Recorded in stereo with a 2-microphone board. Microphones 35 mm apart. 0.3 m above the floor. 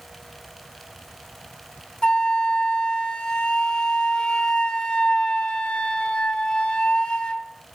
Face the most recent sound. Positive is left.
turn(degrees=25)  # may be behind; listen again after turning